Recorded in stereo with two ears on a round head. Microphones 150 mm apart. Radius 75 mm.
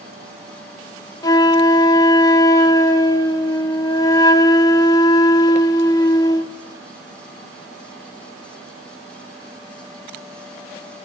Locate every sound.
1.2 s a flute: 20° left (ahead or behind), 0.9 m